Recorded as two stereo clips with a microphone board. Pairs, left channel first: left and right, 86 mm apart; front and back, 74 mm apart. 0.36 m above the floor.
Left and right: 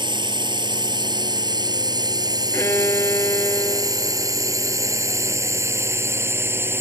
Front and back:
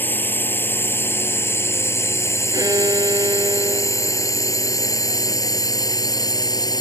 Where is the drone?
65° right; by 6.8 s 30° right.